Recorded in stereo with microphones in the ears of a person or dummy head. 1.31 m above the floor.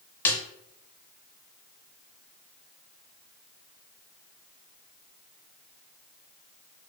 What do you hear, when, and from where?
0.2 s a snare drum: 15° left (ahead or behind), 0.5 m